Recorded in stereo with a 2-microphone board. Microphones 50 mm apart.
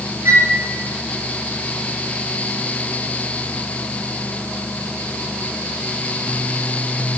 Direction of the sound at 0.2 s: 65° right (ahead or behind).